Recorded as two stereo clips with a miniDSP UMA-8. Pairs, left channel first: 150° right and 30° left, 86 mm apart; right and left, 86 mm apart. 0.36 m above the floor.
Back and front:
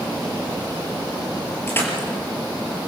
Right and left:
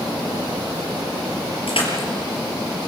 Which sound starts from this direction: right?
Crushing, at 1.7 s.